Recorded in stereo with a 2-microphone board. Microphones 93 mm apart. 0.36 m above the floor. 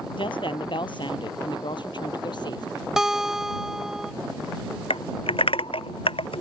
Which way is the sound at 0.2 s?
65° left (ahead or behind).